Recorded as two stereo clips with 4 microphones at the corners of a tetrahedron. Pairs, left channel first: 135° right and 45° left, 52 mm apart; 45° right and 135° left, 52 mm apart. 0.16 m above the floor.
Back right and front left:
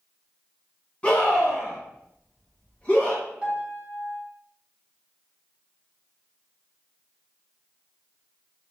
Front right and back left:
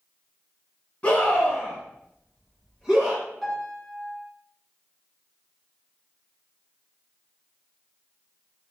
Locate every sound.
1.0 s a scream: 85° right, 1.9 m; by 3.2 s 170° right, 1.8 m
3.4 s a piano: 35° left, 1.5 m